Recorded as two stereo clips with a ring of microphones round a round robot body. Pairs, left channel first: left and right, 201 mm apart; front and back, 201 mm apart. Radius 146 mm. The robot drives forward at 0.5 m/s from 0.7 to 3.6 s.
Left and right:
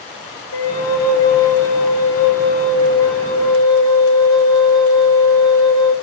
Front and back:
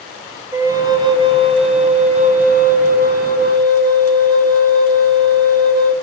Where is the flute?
105° left, 1.7 m; by 6.0 s 140° left, 2.5 m.